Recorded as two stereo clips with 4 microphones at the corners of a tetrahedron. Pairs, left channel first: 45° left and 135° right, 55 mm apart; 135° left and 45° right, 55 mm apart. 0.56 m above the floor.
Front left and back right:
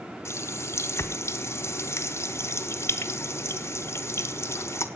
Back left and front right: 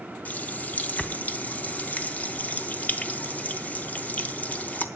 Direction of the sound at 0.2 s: 75° left.